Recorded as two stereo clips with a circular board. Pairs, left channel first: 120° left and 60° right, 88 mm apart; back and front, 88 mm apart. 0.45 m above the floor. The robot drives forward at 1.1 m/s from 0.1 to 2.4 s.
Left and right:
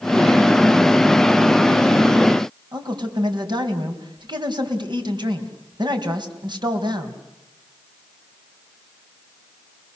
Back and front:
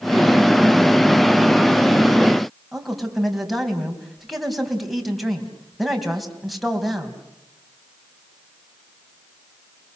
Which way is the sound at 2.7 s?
90° right.